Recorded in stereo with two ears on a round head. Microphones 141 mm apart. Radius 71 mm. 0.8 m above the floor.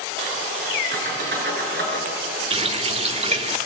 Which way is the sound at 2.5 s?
40° right (ahead or behind).